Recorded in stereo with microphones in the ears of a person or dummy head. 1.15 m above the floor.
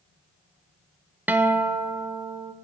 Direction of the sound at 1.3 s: 10° right (ahead or behind).